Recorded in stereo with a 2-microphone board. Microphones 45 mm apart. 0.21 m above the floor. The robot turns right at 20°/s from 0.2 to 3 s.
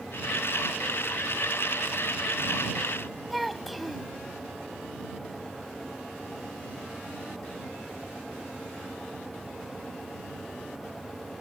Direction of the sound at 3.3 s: Centre (ahead or behind).